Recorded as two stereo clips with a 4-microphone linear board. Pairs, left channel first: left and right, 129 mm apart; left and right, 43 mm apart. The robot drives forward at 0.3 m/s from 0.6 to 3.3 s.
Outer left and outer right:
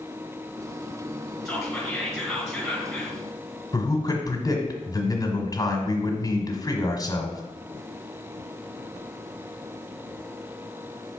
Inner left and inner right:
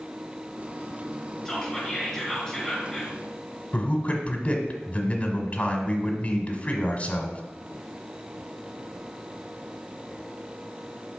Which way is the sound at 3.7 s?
30° left (ahead or behind).